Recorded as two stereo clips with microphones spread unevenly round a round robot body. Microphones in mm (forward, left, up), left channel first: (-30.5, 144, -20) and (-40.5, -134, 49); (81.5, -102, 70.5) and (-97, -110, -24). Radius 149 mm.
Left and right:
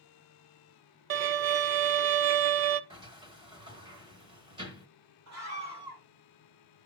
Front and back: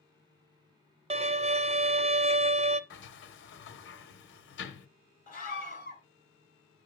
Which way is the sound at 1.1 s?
145° right.